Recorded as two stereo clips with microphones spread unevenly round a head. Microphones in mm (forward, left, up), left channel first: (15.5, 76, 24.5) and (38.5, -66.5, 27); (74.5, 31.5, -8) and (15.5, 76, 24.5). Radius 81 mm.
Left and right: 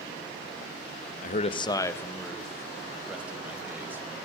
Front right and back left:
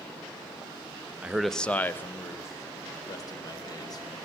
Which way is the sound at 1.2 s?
65° left.